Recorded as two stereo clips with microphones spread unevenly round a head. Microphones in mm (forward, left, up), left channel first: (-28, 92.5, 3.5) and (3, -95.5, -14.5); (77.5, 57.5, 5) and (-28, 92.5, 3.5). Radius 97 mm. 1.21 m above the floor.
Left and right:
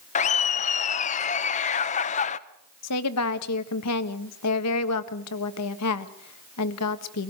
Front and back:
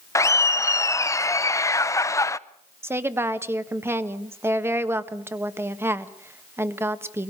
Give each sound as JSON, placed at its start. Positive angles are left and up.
{"t": 0.1, "sound": "laughter", "azimuth_deg": 45, "distance_m": 0.8}
{"t": 2.8, "sound": "a woman speaking", "azimuth_deg": 90, "distance_m": 1.5}